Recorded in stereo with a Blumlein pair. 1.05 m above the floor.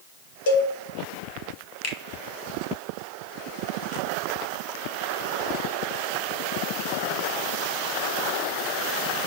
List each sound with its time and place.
0.5 s a cowbell: 55° left, 1.0 m
1.8 s a finger snap: 40° left, 0.7 m